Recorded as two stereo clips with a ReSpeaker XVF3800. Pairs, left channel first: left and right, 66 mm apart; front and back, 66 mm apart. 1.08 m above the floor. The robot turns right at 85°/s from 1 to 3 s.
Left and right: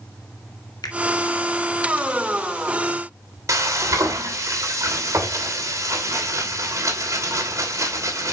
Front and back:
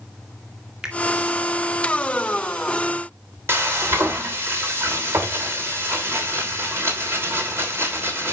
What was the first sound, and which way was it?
A finger snap, 100° left.